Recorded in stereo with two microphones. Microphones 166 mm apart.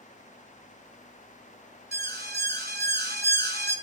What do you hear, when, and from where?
1.9 s an alarm: 75° right (ahead or behind), 3 m